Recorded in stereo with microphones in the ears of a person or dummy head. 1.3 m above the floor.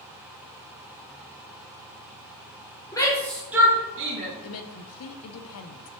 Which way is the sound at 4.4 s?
80° left.